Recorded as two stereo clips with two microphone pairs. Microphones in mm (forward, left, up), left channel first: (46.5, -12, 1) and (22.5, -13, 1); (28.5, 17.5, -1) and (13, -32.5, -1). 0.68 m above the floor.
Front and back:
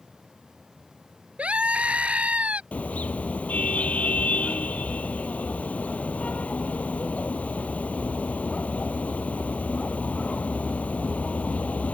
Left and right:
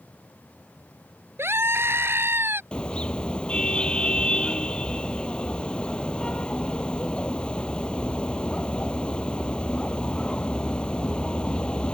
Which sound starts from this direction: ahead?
A car horn, at 2.7 s.